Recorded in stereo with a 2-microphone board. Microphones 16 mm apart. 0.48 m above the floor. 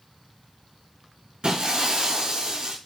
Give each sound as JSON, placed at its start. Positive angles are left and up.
{"t": 1.4, "sound": "breaking glass", "side_deg": -70, "distance_m": 2.0}